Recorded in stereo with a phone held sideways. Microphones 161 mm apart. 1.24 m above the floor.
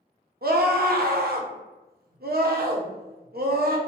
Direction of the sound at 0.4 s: 70° right (ahead or behind).